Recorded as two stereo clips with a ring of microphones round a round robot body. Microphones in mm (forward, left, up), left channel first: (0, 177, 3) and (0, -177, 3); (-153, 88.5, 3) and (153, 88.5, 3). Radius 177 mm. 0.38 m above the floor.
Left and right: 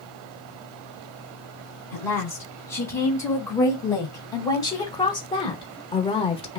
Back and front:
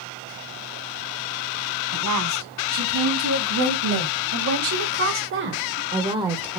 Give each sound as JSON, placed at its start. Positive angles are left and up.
{"t": 1.9, "sound": "a woman speaking", "azimuth_deg": 5, "distance_m": 4.0}